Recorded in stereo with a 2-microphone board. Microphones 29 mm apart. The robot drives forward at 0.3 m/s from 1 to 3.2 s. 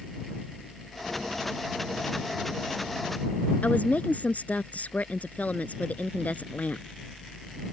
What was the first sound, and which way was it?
A woman speaking, 65° left (ahead or behind).